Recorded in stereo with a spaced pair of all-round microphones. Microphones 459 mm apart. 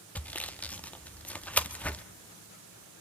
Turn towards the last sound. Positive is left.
turn(degrees=5)  # may be behind; listen again after turning